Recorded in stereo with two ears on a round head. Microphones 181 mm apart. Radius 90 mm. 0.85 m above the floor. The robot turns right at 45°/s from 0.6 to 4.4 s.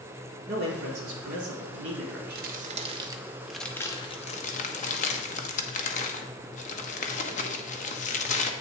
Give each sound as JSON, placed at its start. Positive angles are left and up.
{"t": 0.5, "sound": "a man speaking", "azimuth_deg": -130, "distance_m": 1.7}
{"t": 2.4, "sound": "crumpling", "side_deg": -50, "distance_m": 0.8}